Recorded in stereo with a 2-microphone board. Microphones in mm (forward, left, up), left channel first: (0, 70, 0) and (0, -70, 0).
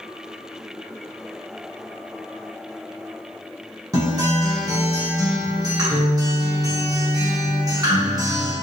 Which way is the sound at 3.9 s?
25° right (ahead or behind).